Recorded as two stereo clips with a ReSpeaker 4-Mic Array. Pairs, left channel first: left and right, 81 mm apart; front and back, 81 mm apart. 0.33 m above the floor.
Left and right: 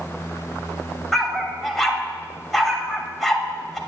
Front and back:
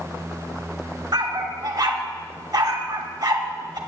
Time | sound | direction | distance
1.1 | a dog barking | 175° left | 0.6 m